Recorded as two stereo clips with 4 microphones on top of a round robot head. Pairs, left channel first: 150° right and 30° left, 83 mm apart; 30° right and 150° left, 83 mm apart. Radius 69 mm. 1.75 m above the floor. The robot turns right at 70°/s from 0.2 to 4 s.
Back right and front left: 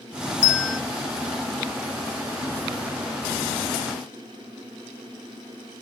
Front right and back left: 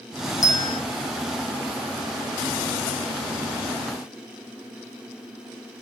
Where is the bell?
85° right, 0.6 m; by 0.8 s 55° right, 0.6 m.